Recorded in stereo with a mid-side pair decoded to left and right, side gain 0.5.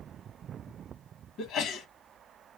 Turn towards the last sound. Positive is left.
turn(degrees=70)